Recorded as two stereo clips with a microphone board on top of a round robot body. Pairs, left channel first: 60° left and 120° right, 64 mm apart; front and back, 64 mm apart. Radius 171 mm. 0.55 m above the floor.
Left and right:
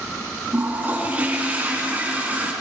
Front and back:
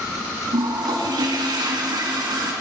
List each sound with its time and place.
0.5 s a toilet flushing: 170° left, 5 m